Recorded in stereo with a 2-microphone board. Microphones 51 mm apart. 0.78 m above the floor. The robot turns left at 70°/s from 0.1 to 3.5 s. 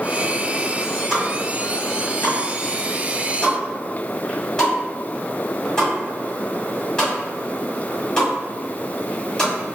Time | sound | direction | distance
1.1 | a pop | 5° right (ahead or behind) | 1.6 m